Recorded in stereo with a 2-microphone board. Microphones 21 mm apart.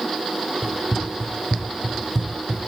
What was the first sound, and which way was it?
Running footsteps, 30° right (ahead or behind).